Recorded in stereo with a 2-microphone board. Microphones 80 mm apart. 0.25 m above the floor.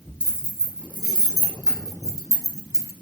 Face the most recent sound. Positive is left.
turn(degrees=-40)  # may be behind; listen again after turning